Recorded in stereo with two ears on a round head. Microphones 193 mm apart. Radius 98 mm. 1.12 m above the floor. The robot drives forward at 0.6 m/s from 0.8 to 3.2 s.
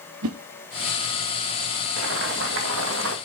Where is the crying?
I don't hear crying.